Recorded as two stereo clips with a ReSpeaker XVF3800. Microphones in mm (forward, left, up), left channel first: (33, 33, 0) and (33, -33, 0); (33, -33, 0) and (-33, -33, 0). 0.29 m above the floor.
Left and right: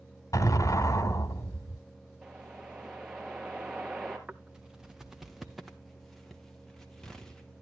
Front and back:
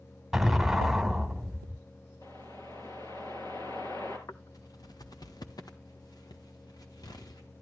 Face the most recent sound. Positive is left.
turn(degrees=5)